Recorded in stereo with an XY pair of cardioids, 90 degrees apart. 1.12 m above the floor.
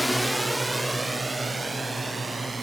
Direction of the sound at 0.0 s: Straight ahead.